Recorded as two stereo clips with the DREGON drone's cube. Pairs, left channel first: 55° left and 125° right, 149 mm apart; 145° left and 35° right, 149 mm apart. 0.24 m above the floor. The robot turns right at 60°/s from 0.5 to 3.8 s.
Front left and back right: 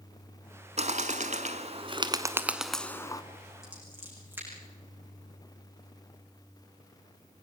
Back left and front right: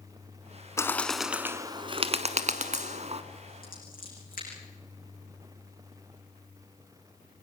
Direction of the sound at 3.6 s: 150° left.